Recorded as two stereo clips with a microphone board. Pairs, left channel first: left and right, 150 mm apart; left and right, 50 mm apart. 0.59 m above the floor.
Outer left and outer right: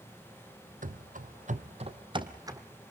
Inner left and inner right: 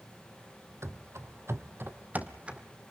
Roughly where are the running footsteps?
Right.